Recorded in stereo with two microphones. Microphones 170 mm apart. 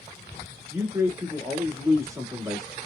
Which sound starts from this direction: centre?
A man speaking, at 0.7 s.